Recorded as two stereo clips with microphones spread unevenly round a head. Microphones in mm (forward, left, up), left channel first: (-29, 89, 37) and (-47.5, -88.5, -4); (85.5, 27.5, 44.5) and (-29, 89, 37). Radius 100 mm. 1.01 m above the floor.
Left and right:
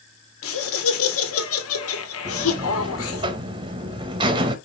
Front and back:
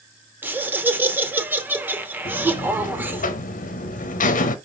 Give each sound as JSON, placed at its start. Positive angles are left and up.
{"t": 0.4, "sound": "laughter", "azimuth_deg": 75, "distance_m": 1.9}
{"t": 2.2, "sound": "a buzzer", "azimuth_deg": -40, "distance_m": 0.9}